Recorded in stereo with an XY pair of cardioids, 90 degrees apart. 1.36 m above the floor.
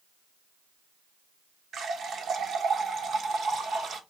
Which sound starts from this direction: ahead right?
A running tap, at 1.7 s.